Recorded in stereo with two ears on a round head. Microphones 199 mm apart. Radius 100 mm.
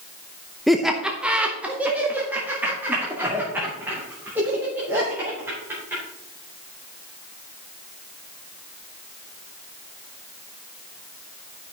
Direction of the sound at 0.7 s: Centre (ahead or behind).